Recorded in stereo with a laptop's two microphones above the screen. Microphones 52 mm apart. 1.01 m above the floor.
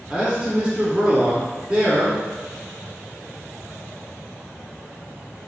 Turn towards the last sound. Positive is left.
turn(degrees=-20)  # may be behind; listen again after turning